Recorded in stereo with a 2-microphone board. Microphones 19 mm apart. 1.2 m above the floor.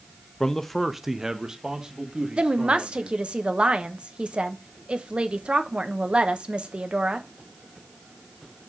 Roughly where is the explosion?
No explosion in this recording.